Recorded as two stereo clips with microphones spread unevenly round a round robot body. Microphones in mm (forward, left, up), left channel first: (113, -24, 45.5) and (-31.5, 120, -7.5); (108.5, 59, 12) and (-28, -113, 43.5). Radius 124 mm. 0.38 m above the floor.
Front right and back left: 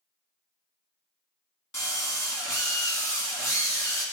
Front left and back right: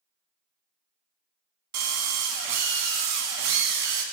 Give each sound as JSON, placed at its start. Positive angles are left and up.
{"t": 1.7, "sound": "a drill", "azimuth_deg": -125, "distance_m": 1.6}